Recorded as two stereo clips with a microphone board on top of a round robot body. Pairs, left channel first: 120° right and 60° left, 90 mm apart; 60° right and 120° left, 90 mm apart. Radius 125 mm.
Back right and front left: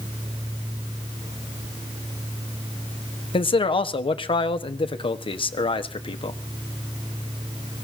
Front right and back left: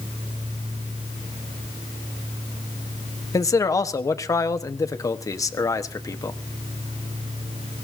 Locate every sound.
3.3 s a man speaking: 110° right, 1.4 m